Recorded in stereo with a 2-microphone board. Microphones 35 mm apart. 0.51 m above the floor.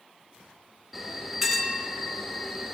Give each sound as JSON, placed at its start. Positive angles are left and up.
{"t": 0.9, "sound": "a bell", "side_deg": -10, "distance_m": 0.7}